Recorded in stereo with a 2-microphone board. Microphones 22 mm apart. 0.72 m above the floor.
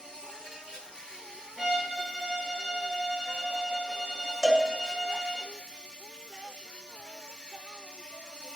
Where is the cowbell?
15° right (ahead or behind), 2.5 m.